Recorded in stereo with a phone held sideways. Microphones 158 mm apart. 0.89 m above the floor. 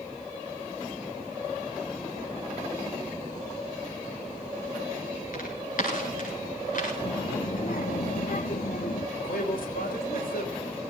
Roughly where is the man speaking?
Left.